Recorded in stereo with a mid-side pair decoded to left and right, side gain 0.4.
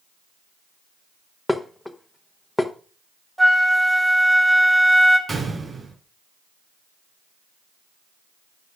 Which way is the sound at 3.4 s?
15° right.